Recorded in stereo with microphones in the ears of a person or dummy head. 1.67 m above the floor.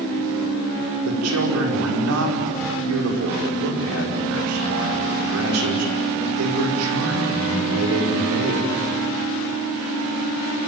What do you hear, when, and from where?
1.1 s a man speaking: 85° right, 5.5 m